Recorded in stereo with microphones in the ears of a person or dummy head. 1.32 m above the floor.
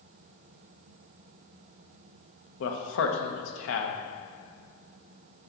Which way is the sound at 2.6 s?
80° left.